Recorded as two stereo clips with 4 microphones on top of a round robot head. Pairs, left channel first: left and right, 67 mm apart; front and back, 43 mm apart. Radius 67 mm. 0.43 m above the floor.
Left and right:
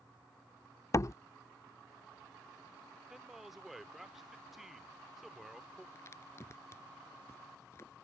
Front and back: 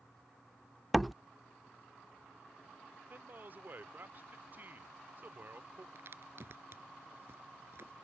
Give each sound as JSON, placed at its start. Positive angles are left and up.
{"t": 0.9, "sound": "a door slam", "azimuth_deg": 85}
{"t": 3.1, "sound": "a man speaking", "azimuth_deg": -175}
{"t": 6.0, "sound": "a crack", "azimuth_deg": 150}